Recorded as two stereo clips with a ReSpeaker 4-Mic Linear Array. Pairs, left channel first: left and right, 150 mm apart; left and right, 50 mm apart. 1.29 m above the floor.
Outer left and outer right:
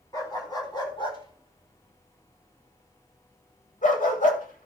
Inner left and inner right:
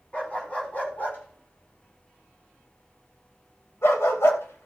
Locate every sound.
0.1 s a dog barking: 25° left (ahead or behind), 3 m; by 4.7 s 65° left (ahead or behind), 1.9 m